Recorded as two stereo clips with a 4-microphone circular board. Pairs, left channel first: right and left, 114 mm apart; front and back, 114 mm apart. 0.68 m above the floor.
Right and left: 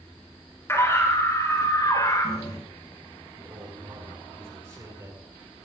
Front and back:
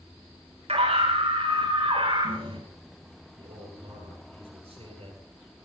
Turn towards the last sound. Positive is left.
turn(degrees=155)